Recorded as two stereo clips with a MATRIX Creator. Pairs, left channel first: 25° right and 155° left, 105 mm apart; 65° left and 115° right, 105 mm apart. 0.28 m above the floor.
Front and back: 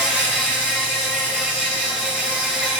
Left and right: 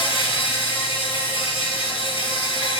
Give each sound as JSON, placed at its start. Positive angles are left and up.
{"t": 0.0, "sound": "an insect", "azimuth_deg": 80, "distance_m": 4.0}